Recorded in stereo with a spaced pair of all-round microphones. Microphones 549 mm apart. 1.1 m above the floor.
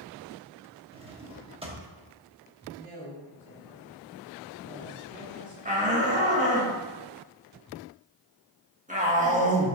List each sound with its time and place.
0.9 s a drawer: 10° right (ahead or behind), 0.9 m
2.8 s a woman speaking: 15° left (ahead or behind), 3 m
5.7 s a shout: 15° right (ahead or behind), 1.7 m